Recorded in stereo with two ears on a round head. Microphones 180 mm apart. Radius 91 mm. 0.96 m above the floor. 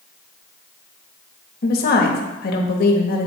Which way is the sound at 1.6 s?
45° left (ahead or behind).